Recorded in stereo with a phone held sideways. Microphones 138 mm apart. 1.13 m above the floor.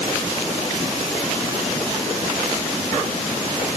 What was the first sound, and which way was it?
Only background noise.